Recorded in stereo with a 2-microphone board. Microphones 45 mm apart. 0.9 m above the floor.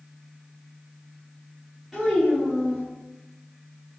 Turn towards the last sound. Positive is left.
turn(degrees=5)  # may be behind; listen again after turning